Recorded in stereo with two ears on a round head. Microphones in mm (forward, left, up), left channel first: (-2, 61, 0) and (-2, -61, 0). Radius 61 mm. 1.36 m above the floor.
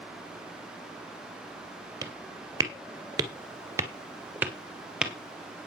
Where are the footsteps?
30° right (ahead or behind), 2 m; by 5.1 s 5° right (ahead or behind), 2 m.